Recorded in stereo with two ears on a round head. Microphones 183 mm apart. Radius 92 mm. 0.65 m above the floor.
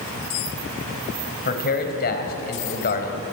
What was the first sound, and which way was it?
A man speaking, 45° left (ahead or behind).